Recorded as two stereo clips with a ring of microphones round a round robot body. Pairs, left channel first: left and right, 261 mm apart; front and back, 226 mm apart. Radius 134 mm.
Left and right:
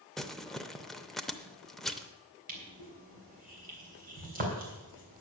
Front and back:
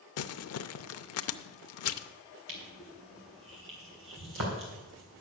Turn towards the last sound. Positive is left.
turn(degrees=-145)